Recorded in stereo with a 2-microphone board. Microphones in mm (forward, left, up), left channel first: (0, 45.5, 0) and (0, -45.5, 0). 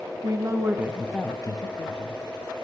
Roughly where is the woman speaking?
Right.